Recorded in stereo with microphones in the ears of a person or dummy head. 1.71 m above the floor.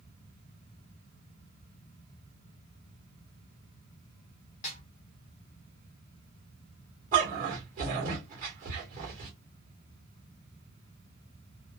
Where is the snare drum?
40° left (ahead or behind), 0.7 m.